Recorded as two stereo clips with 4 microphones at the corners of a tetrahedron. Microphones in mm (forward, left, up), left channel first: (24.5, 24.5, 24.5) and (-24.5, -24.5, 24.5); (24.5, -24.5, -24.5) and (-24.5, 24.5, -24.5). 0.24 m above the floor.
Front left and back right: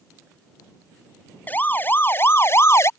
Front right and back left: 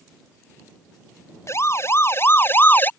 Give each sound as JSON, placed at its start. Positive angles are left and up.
{"t": 1.5, "sound": "a siren", "azimuth_deg": -15}